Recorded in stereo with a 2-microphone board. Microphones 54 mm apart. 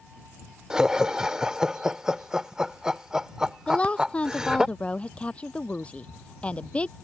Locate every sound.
0.7 s laughter: 10° right (ahead or behind)
3.7 s a woman speaking: 20° left (ahead or behind)